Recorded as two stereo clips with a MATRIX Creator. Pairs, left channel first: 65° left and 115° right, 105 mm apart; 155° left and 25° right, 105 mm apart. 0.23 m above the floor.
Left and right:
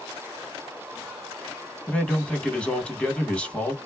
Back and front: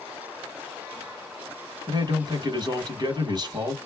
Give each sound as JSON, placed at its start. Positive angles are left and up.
{"t": 1.9, "sound": "a man speaking", "azimuth_deg": -10, "distance_m": 1.4}